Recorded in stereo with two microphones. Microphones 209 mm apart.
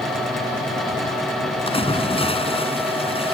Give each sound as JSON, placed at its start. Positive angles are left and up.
{"t": 1.7, "sound": "a splash", "side_deg": 25}